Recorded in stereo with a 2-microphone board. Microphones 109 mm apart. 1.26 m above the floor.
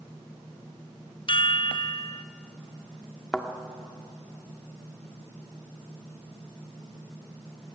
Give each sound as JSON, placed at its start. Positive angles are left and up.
{"t": 1.3, "sound": "a chime", "side_deg": 50, "distance_m": 0.6}
{"t": 3.3, "sound": "a thud", "side_deg": 5, "distance_m": 1.5}